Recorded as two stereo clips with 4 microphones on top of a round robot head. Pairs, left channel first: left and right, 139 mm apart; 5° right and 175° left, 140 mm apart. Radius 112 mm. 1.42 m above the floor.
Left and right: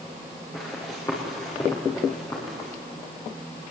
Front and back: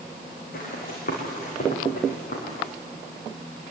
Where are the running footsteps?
15° left, 6.5 m; by 2.7 s 20° left, 8 m.